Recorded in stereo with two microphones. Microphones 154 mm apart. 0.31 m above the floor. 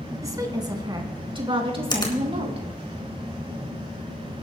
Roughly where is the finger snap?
Left.